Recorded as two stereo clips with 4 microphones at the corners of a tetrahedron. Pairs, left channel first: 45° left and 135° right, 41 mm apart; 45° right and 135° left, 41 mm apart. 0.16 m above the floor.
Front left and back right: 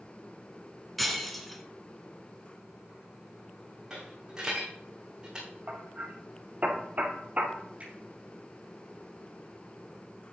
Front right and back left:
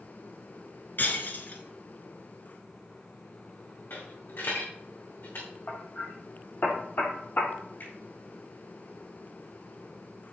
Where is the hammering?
80° right, 1.7 m.